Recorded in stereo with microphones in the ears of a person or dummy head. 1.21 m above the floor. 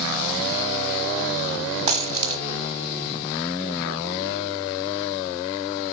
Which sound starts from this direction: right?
A dropped coin, at 1.9 s.